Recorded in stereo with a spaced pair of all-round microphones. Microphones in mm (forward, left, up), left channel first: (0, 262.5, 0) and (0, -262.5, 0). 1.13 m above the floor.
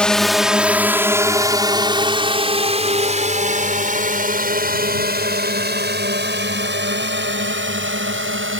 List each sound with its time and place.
0.0 s a drone: centre (ahead or behind); by 8.6 s 25° right (ahead or behind)